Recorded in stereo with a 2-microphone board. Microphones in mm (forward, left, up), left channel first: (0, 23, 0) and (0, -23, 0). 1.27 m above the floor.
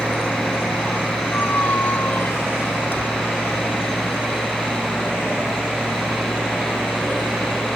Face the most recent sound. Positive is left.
turn(degrees=55)  # may be behind; listen again after turning